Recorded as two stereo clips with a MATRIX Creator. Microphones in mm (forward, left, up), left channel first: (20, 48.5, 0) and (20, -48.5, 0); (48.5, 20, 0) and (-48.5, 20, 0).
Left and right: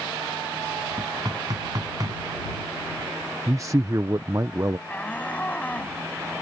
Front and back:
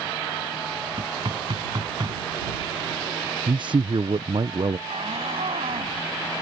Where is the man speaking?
145° right.